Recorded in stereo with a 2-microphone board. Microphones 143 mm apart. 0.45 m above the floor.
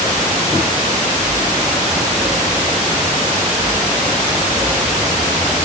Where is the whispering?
No whispering in this recording.